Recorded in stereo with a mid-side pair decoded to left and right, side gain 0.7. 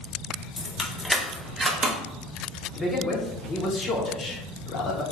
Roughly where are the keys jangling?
Ahead left.